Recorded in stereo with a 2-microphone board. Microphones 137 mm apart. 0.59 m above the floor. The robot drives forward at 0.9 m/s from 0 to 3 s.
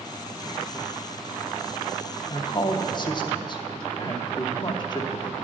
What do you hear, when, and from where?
2.3 s a woman speaking: 35° left (ahead or behind), 0.8 m